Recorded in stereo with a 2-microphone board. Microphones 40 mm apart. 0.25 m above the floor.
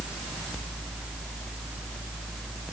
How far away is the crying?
No crying in this recording.